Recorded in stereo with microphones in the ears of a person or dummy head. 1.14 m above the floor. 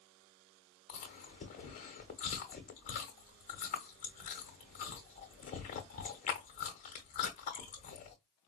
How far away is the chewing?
About 1.0 m.